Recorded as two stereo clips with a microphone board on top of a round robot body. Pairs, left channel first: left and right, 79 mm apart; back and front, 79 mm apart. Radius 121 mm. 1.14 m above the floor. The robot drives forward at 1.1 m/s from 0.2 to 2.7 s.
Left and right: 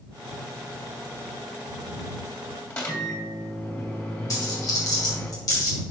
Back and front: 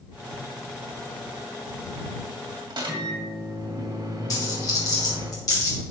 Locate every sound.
2.7 s a microwave: 30° left, 2.5 m
4.3 s a dropped coin: 135° left, 1.9 m